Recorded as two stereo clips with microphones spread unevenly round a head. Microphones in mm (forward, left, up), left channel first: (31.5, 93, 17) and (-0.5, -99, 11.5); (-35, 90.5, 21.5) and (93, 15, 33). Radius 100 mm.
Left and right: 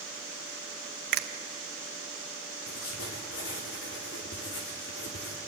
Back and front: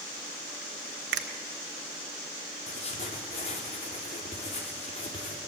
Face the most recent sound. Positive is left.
turn(degrees=105)